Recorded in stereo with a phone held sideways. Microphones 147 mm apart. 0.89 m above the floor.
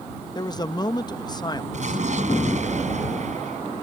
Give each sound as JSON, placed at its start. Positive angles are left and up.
{"t": 0.3, "sound": "a man speaking", "side_deg": 30}
{"t": 1.7, "sound": "an explosion", "side_deg": -55}